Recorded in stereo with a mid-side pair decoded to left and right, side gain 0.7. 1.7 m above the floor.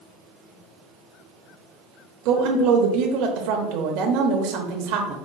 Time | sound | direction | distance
2.2 | a woman speaking | 65° right | 0.8 m